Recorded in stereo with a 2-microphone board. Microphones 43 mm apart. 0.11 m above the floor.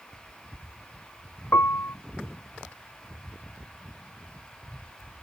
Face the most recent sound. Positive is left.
turn(degrees=70)  # may be behind; listen again after turning